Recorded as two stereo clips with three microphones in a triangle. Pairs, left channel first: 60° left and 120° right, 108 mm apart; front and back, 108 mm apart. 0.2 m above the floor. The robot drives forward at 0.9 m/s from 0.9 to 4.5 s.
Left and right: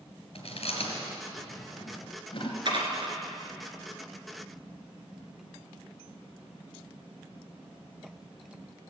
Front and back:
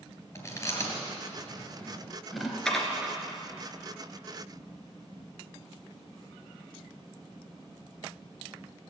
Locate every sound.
0.3 s chewing: 60° left, 3 m; by 2.5 s 95° left, 2.5 m
2.6 s dishes clattering: 85° right, 1.9 m; by 3.1 s 100° right, 1.9 m